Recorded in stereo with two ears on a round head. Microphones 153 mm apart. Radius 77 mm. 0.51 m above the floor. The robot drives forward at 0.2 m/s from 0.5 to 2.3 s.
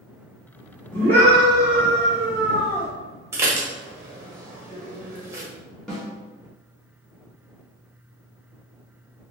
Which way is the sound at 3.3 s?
15° right (ahead or behind).